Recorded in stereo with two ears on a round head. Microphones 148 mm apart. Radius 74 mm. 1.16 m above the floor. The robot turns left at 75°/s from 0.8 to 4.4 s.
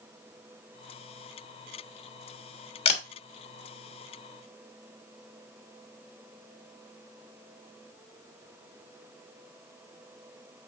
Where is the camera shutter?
35° left (ahead or behind), 1.3 m; by 3.0 s 50° left (ahead or behind), 1.3 m.